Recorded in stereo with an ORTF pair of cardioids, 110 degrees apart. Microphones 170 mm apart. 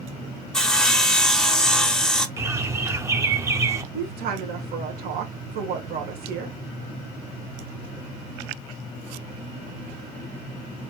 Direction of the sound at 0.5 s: 5° left.